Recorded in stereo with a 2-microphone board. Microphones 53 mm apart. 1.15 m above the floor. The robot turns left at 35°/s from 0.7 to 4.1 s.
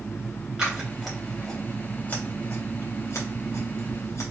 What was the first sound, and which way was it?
Scissors, 10° right (ahead or behind).